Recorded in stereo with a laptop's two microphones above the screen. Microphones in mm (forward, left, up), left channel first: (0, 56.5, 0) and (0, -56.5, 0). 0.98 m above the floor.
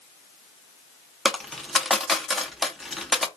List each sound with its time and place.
1.2 s a dropped coin: centre (ahead or behind), 0.6 m